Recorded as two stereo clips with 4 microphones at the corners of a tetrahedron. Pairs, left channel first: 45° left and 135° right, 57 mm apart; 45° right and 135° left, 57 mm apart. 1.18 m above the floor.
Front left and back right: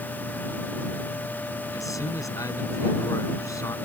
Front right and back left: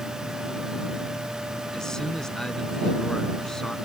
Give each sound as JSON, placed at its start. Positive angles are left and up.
{"t": 1.7, "sound": "a man speaking", "azimuth_deg": 35}